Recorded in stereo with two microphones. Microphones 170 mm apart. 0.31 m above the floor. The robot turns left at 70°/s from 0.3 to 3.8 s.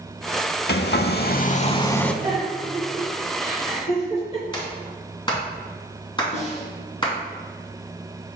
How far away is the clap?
About 2.5 m.